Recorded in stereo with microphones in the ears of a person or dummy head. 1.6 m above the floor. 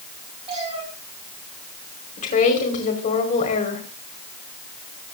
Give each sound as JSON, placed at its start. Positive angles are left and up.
{"t": 0.5, "sound": "a cat meowing", "side_deg": -40, "distance_m": 8.0}
{"t": 2.2, "sound": "a woman speaking", "side_deg": 35, "distance_m": 5.0}